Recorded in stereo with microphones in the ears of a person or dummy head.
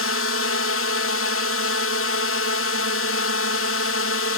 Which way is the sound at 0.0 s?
60° left (ahead or behind).